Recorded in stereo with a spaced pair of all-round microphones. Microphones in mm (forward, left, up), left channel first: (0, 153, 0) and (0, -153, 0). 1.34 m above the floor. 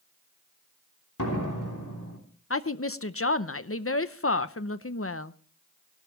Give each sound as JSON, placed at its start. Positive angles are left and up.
{"t": 1.2, "sound": "a door slam", "side_deg": 75, "distance_m": 3.0}
{"t": 2.5, "sound": "a woman speaking", "side_deg": 45, "distance_m": 0.7}